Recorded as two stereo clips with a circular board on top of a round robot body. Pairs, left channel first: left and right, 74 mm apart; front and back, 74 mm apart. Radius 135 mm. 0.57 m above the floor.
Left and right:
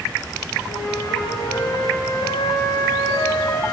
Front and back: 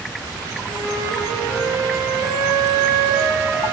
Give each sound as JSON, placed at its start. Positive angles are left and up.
{"t": 0.7, "sound": "a flute", "azimuth_deg": 120, "distance_m": 6.0}